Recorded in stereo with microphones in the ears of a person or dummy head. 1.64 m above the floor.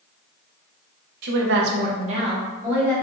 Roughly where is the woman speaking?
Right.